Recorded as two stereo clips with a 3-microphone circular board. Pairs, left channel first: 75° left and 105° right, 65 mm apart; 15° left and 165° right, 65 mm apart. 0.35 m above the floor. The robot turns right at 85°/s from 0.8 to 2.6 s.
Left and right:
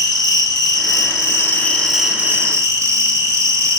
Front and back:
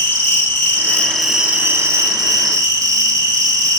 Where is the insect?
70° left, 1.3 m; by 3.8 s 140° right, 1.3 m.